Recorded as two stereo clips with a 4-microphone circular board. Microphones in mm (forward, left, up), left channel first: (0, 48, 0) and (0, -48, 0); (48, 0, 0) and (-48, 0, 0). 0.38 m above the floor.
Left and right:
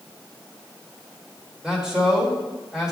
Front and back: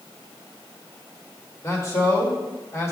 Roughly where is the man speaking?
Ahead.